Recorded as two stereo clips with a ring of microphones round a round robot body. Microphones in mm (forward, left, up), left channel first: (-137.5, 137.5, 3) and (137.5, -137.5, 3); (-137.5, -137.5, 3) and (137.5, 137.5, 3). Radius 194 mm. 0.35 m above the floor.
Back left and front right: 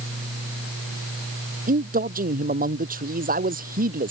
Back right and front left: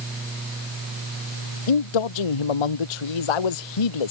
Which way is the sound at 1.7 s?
115° right.